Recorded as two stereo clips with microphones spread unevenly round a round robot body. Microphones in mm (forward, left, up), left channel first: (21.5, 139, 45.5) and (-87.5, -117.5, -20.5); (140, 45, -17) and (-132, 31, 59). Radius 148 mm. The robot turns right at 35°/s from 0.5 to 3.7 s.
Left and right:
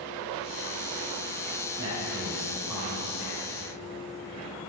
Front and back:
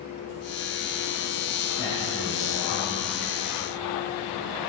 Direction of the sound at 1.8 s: 65° right.